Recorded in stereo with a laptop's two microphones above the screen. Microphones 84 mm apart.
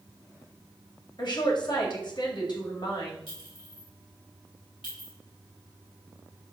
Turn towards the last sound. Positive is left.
turn(degrees=85)